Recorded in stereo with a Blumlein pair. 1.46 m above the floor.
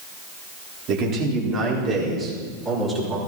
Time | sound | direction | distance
0.9 | a man speaking | 35° right | 4 m